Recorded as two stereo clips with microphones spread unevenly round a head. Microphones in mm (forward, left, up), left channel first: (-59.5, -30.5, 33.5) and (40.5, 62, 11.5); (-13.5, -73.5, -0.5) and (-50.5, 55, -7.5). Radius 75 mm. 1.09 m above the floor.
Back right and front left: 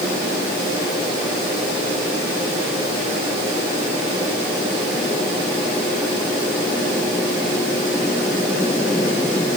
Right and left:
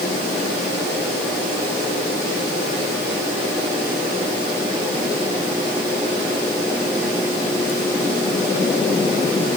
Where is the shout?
No shout in this recording.